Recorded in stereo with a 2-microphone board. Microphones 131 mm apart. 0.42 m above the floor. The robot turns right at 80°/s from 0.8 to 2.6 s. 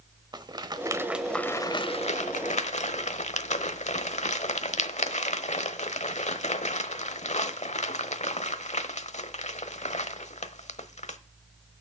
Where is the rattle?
35° right (ahead or behind), 0.9 m; by 11.2 s 60° left (ahead or behind), 0.9 m.